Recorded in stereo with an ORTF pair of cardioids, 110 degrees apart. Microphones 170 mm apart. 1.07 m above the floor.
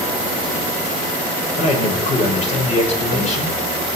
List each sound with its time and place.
1.6 s a man speaking: 40° left, 5.5 m